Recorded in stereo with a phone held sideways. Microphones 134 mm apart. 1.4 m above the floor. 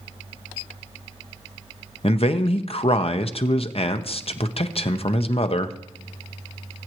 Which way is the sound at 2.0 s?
50° left (ahead or behind).